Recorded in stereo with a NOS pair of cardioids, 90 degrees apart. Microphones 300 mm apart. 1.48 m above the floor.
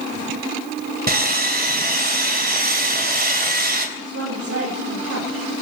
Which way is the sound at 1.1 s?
35° right.